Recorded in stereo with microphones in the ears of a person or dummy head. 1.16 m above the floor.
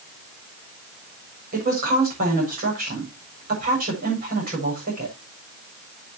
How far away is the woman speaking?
About 6.5 m.